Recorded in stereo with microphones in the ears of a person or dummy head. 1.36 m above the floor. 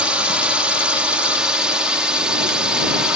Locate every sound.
0.0 s a drone: centre (ahead or behind)